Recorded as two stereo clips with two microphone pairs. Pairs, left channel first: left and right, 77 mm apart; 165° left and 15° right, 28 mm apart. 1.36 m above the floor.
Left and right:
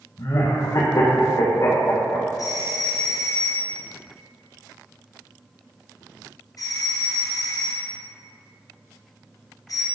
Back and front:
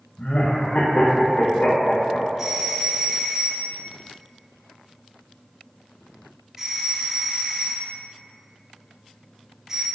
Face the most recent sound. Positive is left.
turn(degrees=55)